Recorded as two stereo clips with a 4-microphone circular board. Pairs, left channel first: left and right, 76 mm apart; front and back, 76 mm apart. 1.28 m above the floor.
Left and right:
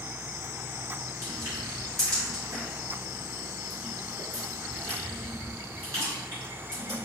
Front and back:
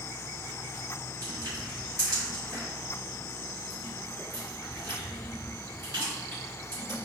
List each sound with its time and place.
1.2 s crushing: 140° right, 1.9 m